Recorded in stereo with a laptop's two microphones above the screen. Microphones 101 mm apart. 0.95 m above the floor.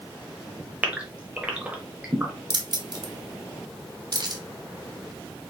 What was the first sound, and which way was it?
A gasp, 15° right (ahead or behind).